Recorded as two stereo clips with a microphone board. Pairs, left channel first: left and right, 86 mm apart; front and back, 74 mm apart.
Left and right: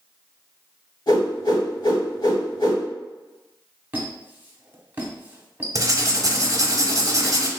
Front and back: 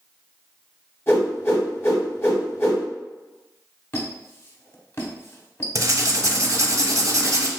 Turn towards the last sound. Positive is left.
turn(degrees=-135)